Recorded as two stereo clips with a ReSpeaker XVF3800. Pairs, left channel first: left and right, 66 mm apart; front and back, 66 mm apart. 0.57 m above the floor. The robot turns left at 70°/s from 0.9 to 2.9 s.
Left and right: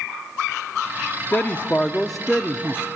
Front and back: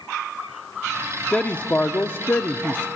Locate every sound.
1.3 s a man speaking: 60° left, 0.7 m; by 2.9 s 45° right, 0.7 m